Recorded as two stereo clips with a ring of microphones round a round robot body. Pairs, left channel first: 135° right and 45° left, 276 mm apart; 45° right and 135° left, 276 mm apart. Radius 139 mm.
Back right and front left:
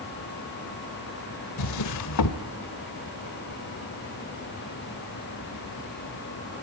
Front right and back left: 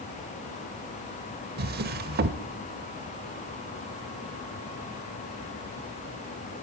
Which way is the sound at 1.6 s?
165° right.